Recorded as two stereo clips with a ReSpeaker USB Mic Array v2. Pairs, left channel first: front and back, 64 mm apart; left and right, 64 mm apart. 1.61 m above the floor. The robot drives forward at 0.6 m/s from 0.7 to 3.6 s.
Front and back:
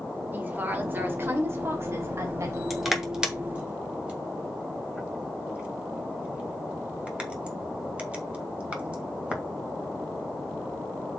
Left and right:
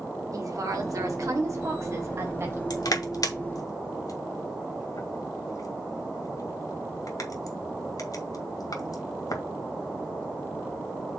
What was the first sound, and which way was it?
A woman speaking, 120° right.